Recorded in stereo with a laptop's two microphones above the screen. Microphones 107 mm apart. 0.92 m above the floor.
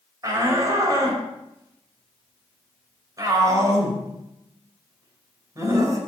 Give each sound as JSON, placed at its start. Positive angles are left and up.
{"t": 0.2, "sound": "a shout", "side_deg": -35, "distance_m": 4.5}